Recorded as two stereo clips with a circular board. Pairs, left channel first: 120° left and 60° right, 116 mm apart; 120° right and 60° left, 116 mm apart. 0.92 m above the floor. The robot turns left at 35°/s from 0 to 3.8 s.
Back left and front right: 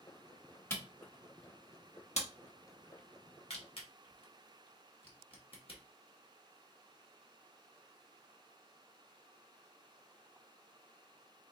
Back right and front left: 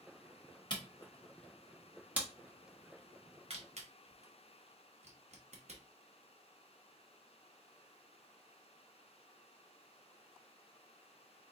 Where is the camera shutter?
170° right, 1.0 m; by 5.8 s 80° left, 1.0 m.